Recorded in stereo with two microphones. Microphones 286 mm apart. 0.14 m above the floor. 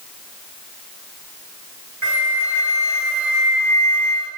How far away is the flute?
About 9 m.